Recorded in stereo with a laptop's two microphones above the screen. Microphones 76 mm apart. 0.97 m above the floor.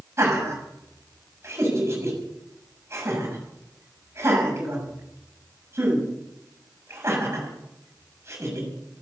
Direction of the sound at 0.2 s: 35° right (ahead or behind).